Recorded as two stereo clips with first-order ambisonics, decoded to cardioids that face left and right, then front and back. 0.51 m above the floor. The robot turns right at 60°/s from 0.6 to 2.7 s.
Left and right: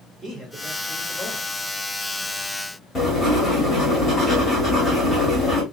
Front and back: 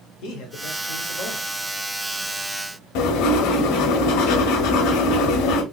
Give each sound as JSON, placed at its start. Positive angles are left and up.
{"t": 0.2, "sound": "a man speaking", "azimuth_deg": -15, "distance_m": 1.5}
{"t": 3.0, "sound": "writing", "azimuth_deg": 10, "distance_m": 1.2}